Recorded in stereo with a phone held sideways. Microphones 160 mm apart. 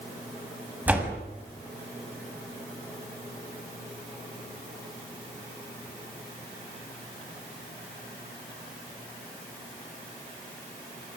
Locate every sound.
0.9 s a door slam: 10° right (ahead or behind), 6.5 m